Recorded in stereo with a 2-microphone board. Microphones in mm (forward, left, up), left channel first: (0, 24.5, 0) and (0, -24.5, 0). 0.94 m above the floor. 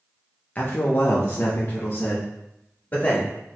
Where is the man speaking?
30° left (ahead or behind), 0.6 m.